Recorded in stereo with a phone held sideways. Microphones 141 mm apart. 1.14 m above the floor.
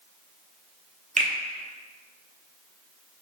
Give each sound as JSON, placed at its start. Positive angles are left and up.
{"t": 1.2, "sound": "a finger snap", "side_deg": -60, "distance_m": 0.5}